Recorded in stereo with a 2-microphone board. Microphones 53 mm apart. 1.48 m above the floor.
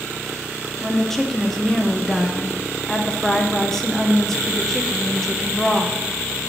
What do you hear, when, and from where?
0.8 s a woman speaking: 5° left (ahead or behind), 0.7 m